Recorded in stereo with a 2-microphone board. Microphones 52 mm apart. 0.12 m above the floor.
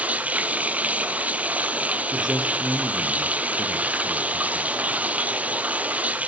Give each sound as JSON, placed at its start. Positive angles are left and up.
{"t": 0.0, "sound": "running water", "side_deg": -30, "distance_m": 1.0}
{"t": 2.1, "sound": "a man speaking", "side_deg": -5, "distance_m": 2.5}